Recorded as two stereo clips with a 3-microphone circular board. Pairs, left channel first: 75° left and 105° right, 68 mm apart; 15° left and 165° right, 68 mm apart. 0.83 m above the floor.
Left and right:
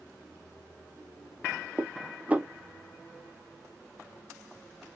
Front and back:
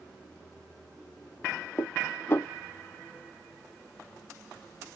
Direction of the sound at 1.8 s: 40° right.